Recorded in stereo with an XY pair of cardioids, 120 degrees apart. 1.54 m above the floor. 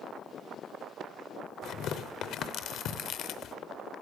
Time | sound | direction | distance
1.6 | tearing paper | 70° left | 0.6 m